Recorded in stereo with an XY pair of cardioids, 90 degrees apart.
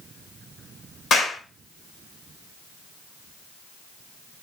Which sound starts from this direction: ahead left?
A clap, at 1.1 s.